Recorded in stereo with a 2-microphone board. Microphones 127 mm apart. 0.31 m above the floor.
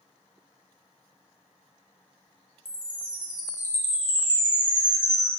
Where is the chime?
35° right (ahead or behind), 2 m.